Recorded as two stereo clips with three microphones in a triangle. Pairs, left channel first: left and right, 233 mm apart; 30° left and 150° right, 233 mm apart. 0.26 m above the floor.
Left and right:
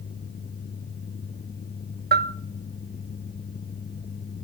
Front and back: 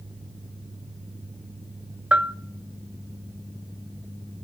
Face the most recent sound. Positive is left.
turn(degrees=-65)